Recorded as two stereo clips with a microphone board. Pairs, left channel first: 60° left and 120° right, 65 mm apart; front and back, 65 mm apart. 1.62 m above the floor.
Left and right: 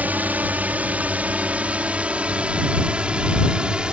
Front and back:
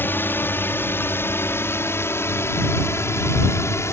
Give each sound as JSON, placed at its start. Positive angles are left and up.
{"t": 0.0, "sound": "a drone", "azimuth_deg": -60}